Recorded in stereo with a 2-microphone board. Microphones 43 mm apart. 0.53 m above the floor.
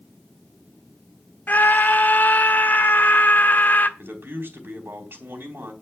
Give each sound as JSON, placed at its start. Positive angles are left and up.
{"t": 1.5, "sound": "a scream", "side_deg": 45, "distance_m": 1.2}
{"t": 4.0, "sound": "a man speaking", "side_deg": -55, "distance_m": 4.0}